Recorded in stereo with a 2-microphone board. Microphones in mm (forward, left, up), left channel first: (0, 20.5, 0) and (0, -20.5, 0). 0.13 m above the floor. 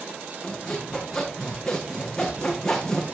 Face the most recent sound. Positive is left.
turn(degrees=10)  # may be behind; listen again after turning